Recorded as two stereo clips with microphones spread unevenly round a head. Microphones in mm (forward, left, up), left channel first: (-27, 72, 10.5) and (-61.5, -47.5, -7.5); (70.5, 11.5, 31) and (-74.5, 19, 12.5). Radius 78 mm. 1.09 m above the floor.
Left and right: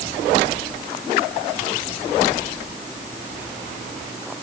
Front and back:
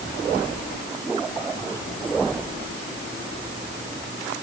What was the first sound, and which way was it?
Only background noise.